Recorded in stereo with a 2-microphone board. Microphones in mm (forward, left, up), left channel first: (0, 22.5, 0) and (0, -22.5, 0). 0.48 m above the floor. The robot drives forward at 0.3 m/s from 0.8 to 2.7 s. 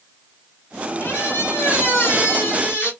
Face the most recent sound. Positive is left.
turn(degrees=60)  # may be behind; listen again after turning